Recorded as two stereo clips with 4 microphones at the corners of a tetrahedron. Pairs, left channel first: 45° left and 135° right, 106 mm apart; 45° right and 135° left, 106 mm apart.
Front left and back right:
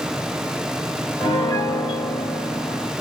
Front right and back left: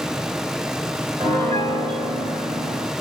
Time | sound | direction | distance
1.2 | a piano | 105° left | 3 m